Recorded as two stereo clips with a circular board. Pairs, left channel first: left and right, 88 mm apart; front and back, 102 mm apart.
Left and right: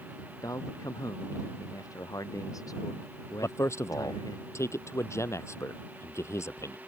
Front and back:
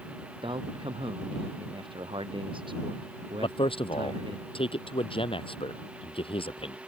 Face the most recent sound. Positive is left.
turn(degrees=30)